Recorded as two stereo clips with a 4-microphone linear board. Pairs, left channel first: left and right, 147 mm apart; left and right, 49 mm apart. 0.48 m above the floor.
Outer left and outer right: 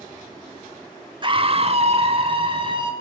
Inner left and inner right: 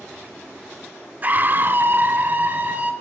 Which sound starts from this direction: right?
A scream, at 1.2 s.